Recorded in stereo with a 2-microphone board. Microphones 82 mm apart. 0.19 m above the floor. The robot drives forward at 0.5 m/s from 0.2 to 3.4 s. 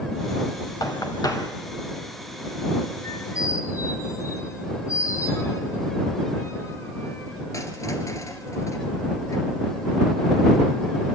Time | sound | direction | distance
0.8 | knocking | 50° left (ahead or behind) | 1.9 m
3.0 | a squeak | 45° left (ahead or behind) | 1.8 m